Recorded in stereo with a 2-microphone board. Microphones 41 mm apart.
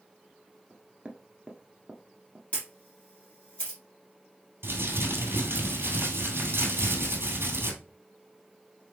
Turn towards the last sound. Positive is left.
turn(degrees=-60)  # may be behind; listen again after turning